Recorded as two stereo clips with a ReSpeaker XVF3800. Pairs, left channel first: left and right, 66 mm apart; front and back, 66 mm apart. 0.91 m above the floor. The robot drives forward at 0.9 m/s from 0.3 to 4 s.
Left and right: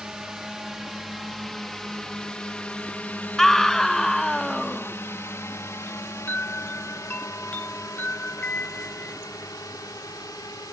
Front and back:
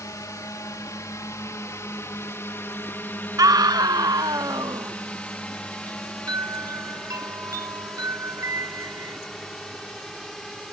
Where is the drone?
10° right; by 10.7 s 80° left.